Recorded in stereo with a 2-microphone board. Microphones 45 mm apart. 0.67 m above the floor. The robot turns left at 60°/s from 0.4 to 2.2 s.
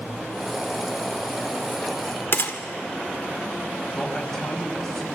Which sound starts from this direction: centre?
A man speaking, at 3.9 s.